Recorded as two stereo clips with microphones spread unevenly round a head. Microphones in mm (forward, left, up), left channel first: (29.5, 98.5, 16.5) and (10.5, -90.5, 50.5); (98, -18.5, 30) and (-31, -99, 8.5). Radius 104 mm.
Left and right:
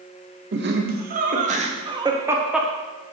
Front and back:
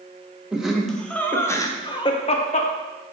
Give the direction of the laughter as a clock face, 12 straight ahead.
2 o'clock.